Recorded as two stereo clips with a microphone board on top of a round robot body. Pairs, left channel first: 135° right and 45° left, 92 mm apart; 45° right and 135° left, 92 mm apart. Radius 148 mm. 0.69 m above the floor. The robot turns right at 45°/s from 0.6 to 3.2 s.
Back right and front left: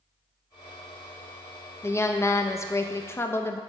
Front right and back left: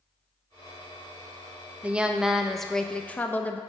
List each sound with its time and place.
1.8 s a woman speaking: 165° right, 0.5 m; by 3.6 s 100° right, 0.5 m